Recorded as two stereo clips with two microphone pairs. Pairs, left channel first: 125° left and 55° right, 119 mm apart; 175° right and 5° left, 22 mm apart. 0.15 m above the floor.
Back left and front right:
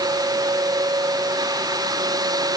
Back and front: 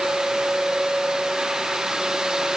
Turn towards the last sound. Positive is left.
No sound to turn to.